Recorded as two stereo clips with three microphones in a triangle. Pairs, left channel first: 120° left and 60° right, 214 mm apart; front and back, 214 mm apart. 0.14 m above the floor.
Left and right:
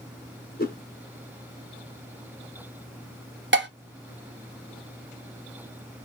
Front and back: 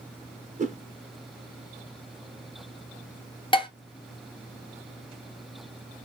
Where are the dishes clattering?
65° right, 1.5 m.